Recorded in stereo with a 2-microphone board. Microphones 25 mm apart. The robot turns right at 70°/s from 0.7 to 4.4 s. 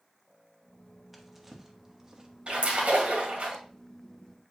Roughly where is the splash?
Behind right.